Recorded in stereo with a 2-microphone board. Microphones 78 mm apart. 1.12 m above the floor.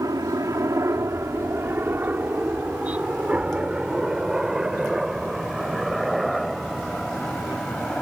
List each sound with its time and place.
0.0 s a helicopter: 50° right (ahead or behind); by 8.0 s 5° left (ahead or behind)